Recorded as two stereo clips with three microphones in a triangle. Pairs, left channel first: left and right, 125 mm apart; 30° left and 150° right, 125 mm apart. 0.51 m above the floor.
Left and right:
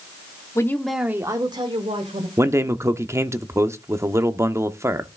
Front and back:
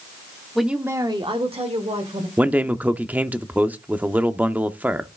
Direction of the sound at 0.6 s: 115° left.